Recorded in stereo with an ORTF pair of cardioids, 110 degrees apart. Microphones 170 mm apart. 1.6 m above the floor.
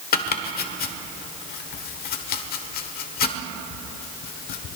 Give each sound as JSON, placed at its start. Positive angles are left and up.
{"t": 0.1, "sound": "chopping", "azimuth_deg": 65, "distance_m": 1.2}